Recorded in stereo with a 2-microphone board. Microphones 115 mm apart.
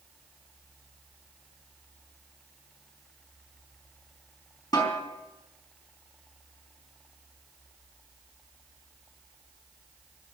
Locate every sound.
4.7 s a snare drum: 35° left (ahead or behind), 4 m